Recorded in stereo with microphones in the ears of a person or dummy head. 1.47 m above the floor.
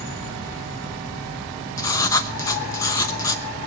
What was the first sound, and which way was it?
Writing, 20° left (ahead or behind).